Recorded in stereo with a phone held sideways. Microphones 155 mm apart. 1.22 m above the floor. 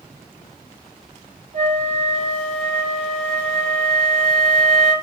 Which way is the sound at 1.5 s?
45° right (ahead or behind).